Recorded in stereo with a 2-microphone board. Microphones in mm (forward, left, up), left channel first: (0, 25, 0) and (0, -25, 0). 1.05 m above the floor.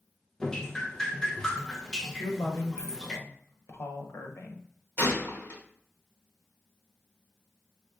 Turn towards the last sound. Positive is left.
turn(degrees=50)  # may be behind; listen again after turning